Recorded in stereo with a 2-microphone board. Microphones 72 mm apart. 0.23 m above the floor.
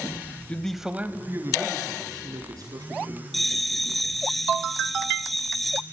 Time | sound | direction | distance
0.5 | a man speaking | 20° left (ahead or behind) | 0.9 m
3.3 | a bell | centre (ahead or behind) | 1.2 m